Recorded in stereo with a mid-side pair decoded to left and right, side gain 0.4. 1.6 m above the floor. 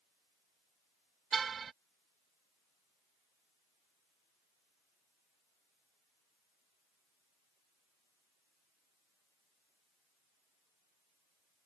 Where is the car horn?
50° right.